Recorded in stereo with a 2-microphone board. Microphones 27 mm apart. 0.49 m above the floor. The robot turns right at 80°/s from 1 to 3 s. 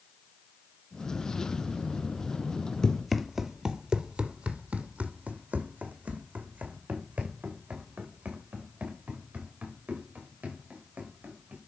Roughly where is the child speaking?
I don't hear a child speaking.